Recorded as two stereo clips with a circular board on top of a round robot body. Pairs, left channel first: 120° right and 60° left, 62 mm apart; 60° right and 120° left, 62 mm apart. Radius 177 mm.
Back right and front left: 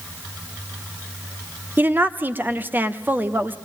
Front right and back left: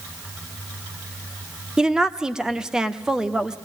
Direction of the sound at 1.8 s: 50° left.